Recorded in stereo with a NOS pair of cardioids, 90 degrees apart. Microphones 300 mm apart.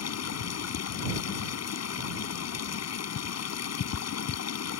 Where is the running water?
55° left.